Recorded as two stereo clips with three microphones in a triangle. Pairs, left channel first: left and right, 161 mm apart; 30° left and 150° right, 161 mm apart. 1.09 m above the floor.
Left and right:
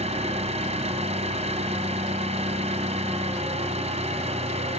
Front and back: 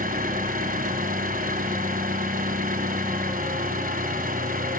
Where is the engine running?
135° right, 2 m.